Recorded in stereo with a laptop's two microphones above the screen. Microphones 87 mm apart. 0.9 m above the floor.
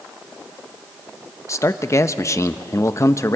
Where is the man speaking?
35° left (ahead or behind), 0.8 m.